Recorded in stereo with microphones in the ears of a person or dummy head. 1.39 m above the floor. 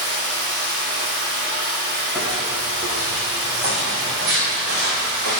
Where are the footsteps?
Centre (ahead or behind), 2.5 m; by 5.4 s 65° right (ahead or behind), 3 m.